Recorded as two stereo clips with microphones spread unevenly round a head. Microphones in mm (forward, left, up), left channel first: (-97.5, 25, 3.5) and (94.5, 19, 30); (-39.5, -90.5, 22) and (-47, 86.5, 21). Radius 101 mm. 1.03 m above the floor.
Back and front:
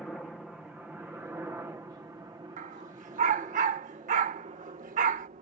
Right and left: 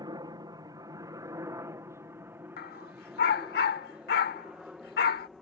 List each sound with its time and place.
0.0 s a helicopter: 100° left; by 5.4 s 5° left
2.6 s a dog barking: 45° right